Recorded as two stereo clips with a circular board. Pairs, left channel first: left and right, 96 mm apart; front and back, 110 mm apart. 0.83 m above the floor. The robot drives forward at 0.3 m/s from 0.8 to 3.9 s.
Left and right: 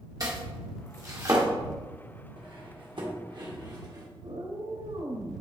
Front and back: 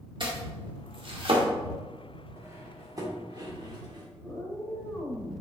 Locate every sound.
0.2 s chopping: 140° right, 1.4 m; by 1.4 s 145° right, 1.5 m
2.4 s cutlery clinking: 115° right, 1.3 m; by 4.1 s 130° right, 1.6 m
4.2 s a cat meowing: 90° right, 2 m